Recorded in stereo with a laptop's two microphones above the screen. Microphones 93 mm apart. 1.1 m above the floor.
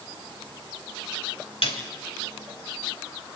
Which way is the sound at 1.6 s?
80° left.